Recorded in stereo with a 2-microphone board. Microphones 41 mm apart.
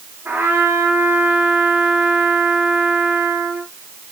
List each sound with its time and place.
0.2 s a trumpet: 70° right (ahead or behind), 8 m